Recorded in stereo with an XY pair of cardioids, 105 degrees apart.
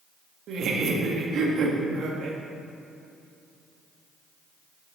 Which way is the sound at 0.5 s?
65° right.